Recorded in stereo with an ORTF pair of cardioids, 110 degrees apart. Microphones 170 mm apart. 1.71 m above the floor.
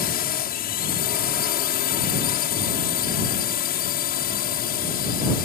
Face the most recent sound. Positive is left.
turn(degrees=65)